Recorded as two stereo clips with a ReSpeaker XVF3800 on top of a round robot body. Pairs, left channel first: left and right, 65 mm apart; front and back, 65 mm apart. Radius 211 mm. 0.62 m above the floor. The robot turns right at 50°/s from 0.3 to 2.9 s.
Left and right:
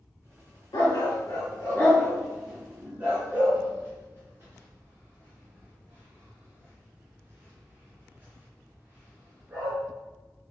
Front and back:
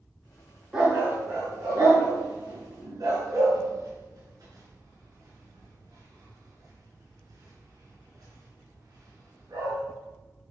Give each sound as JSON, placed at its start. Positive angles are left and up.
{"t": 0.7, "sound": "a dog barking", "azimuth_deg": 100, "distance_m": 4.0}